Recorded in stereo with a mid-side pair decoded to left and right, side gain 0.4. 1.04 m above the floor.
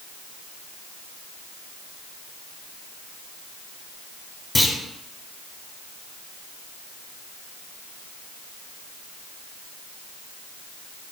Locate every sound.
4.5 s a clunk: 20° left, 1.8 m